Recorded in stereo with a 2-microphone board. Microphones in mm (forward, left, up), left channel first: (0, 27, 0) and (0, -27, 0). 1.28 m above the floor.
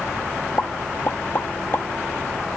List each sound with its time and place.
0.6 s a pop: 40° left (ahead or behind), 0.8 m